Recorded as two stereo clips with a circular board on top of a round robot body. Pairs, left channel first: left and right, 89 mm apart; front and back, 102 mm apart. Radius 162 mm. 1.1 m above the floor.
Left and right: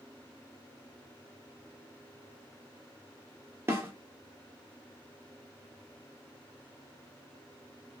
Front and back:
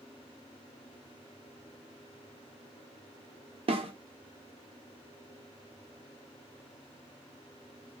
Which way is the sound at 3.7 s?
155° right.